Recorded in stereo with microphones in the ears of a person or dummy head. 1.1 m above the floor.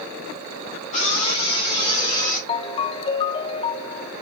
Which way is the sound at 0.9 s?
30° left (ahead or behind).